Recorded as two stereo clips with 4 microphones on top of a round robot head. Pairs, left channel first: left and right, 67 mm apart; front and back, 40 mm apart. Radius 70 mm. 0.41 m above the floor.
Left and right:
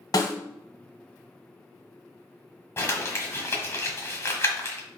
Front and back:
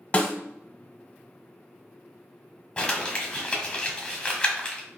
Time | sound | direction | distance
0.1 | a snare drum | 55° left | 0.9 m
2.8 | crumpling | 55° left | 1.3 m